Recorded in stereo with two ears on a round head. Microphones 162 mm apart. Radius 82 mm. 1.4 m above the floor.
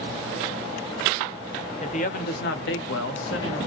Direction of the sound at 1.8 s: 40° left (ahead or behind).